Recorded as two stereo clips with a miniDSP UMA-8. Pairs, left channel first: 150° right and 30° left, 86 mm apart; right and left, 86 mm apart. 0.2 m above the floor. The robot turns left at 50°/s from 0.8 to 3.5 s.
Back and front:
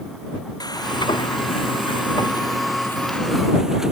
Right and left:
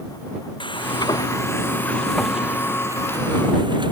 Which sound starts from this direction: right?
Frying, at 0.6 s.